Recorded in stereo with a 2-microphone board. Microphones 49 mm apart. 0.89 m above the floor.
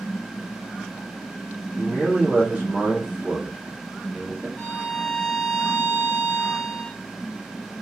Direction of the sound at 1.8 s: 25° right (ahead or behind).